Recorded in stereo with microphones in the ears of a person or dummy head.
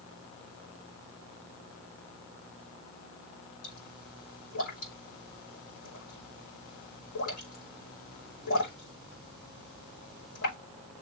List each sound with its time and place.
3.6 s a pop: 70° left (ahead or behind), 5.5 m